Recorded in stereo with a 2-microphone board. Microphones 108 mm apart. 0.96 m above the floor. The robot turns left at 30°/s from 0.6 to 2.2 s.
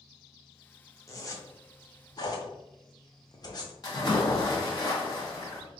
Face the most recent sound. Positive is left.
turn(degrees=40)  # may be behind; listen again after turning